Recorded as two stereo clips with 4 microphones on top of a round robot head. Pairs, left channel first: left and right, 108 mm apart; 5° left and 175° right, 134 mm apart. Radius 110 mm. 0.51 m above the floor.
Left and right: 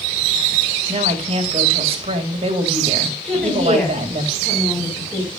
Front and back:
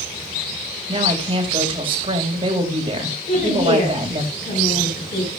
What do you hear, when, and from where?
0.9 s a woman speaking: 125° right, 2.5 m
3.2 s a woman speaking: 10° left, 5 m